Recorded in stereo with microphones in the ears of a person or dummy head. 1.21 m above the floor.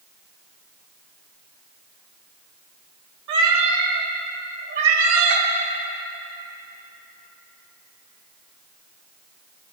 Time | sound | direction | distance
3.3 | a cat meowing | 65° right (ahead or behind) | 1.7 m